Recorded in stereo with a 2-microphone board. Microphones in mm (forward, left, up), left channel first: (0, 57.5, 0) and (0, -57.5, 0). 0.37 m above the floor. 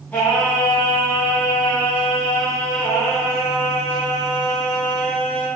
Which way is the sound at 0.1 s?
15° left (ahead or behind).